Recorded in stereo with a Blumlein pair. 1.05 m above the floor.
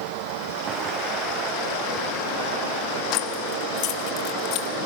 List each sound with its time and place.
0.7 s footsteps: 30° right, 4.5 m; by 3.0 s 45° right, 6.5 m
3.1 s keys jangling: 40° left, 1.4 m